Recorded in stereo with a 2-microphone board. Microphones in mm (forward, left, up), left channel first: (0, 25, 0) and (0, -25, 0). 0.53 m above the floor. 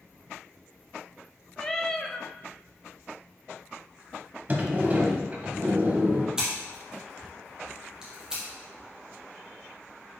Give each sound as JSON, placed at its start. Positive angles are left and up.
{"t": 1.6, "sound": "a cat meowing", "side_deg": 10, "distance_m": 0.6}
{"t": 4.5, "sound": "a sliding door", "side_deg": -35, "distance_m": 1.2}
{"t": 6.4, "sound": "scissors", "side_deg": -15, "distance_m": 3.0}